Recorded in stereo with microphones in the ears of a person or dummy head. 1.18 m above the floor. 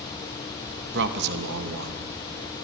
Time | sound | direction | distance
0.9 | a man speaking | 60° right (ahead or behind) | 1.2 m